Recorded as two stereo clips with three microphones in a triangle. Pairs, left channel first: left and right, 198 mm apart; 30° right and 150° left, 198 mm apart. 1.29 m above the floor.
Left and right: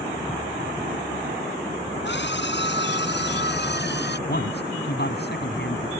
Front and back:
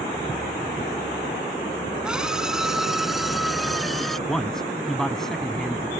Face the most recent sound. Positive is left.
turn(degrees=60)